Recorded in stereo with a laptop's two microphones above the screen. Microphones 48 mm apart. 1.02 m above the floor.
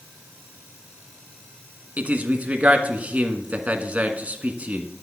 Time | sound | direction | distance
2.0 | a man speaking | 25° right (ahead or behind) | 1.4 m